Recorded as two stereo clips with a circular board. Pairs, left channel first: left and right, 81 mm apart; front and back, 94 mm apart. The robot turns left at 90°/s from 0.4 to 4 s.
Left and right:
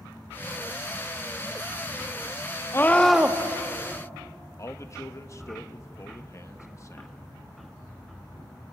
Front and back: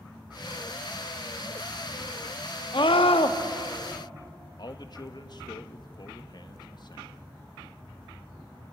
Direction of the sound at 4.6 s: 40° left.